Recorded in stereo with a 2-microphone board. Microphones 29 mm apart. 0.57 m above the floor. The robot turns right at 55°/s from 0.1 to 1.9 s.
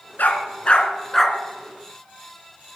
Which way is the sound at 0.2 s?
65° left (ahead or behind).